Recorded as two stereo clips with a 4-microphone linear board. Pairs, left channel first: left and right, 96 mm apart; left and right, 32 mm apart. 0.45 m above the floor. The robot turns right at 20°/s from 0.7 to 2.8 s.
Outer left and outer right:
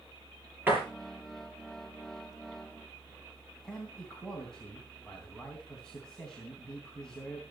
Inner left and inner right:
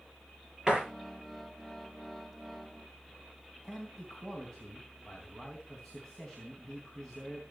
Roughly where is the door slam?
Right.